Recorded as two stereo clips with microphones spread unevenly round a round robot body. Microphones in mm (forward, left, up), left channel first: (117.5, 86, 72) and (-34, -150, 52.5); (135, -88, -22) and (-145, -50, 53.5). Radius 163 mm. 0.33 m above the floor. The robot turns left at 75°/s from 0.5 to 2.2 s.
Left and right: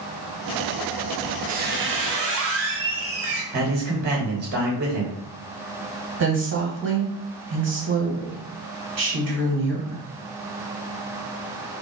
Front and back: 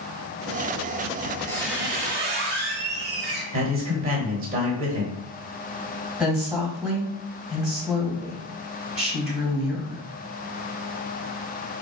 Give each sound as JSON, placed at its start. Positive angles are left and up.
{"t": 1.2, "sound": "a squeak", "azimuth_deg": -55, "distance_m": 1.1}
{"t": 3.5, "sound": "a man speaking", "azimuth_deg": -120, "distance_m": 1.3}
{"t": 6.2, "sound": "a woman speaking", "azimuth_deg": -90, "distance_m": 1.8}